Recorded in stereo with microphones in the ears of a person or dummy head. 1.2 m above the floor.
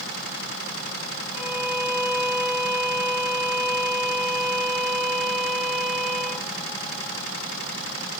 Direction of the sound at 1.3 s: 5° right (ahead or behind).